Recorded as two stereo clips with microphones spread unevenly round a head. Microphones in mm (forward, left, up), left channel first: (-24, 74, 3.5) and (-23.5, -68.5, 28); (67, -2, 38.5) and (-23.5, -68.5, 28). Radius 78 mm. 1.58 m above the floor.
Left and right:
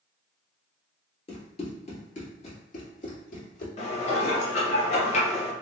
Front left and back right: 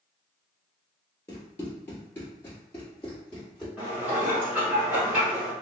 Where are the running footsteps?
70° left, 1.7 m; by 3.7 s 115° left, 2 m.